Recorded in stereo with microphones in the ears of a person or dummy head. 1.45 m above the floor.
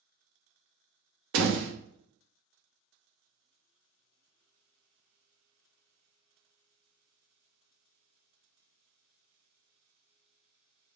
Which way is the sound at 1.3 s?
75° right (ahead or behind).